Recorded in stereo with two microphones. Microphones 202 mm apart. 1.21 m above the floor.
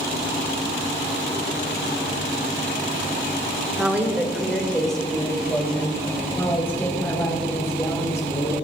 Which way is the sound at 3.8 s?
10° right (ahead or behind).